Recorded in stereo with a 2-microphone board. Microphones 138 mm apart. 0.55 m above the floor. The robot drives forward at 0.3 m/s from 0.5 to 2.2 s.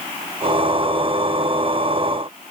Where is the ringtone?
No ringtone in this recording.